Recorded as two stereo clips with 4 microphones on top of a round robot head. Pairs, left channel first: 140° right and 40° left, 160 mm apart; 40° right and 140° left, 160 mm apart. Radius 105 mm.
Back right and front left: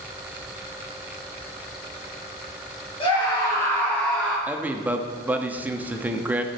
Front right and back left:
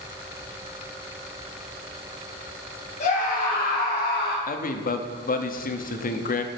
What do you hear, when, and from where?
3.0 s a scream: 85° right, 3 m; by 4.4 s 50° right, 3.5 m
4.5 s a man speaking: 35° right, 0.9 m